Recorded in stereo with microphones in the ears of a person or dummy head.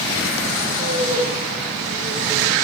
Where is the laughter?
70° right (ahead or behind), 5.5 m; by 2.5 s 65° right (ahead or behind), 7.5 m.